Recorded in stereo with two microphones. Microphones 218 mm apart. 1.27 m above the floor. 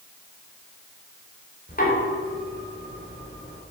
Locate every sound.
1.7 s knocking: 45° left (ahead or behind), 3.5 m